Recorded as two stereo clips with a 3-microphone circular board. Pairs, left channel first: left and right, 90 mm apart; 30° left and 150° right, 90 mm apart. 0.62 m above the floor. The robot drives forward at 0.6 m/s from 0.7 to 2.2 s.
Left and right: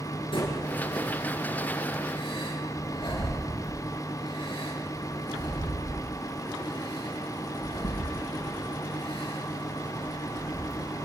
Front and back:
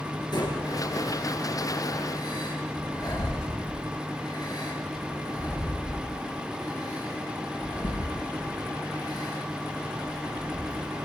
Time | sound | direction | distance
0.3 | breathing | 70° left | 8.5 m